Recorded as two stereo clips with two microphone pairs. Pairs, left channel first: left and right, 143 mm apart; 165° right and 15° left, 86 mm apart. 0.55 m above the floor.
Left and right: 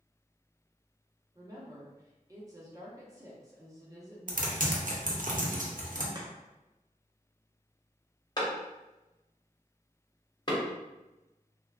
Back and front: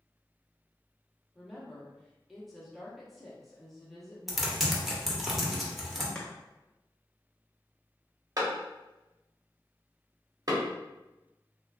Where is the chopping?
95° right, 0.6 m.